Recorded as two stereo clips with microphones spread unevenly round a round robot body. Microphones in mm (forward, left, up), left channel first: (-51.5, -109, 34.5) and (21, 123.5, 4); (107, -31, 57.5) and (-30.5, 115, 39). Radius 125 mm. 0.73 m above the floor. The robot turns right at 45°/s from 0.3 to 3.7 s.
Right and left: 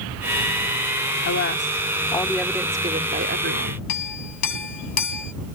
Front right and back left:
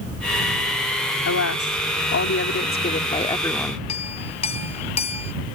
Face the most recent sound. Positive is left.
turn(degrees=-115)